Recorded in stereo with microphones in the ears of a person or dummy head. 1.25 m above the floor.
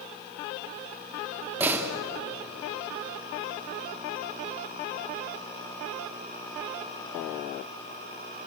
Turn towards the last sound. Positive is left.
turn(degrees=-10)  # may be behind; listen again after turning